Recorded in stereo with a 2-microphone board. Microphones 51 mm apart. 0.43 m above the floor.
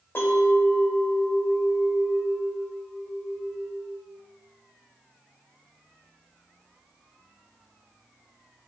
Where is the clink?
50° left (ahead or behind), 0.9 m.